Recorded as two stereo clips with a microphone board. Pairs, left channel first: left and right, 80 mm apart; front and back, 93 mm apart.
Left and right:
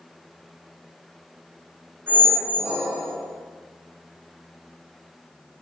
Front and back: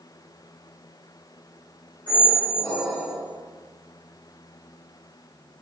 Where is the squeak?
30° right, 1.1 m.